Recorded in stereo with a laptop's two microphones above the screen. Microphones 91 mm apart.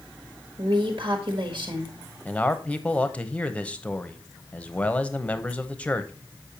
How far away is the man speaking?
About 0.9 m.